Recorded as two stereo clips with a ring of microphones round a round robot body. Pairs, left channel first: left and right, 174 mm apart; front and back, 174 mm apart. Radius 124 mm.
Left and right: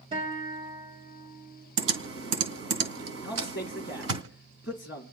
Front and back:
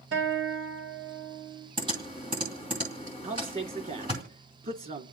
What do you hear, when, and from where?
0.1 s a guitar: 160° right, 3.5 m
1.8 s typing on a keyboard: 110° right, 2.5 m
3.2 s a man speaking: 140° left, 2 m